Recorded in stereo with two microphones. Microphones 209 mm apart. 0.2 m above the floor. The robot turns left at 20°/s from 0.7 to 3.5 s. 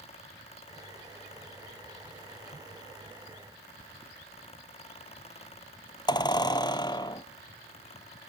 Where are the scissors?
I don't hear scissors.